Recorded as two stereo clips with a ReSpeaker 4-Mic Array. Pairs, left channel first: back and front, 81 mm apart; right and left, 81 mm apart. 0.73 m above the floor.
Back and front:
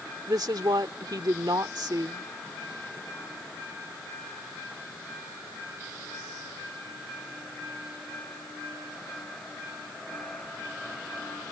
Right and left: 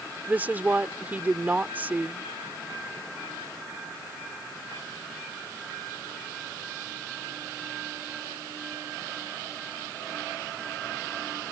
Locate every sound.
0.3 s a woman speaking: 20° left